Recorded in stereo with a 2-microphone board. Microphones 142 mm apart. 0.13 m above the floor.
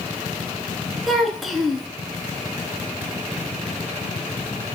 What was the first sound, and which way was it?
A child speaking, centre (ahead or behind).